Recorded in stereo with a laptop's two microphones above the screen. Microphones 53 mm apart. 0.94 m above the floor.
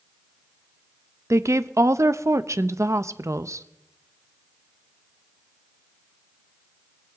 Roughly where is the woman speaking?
Right.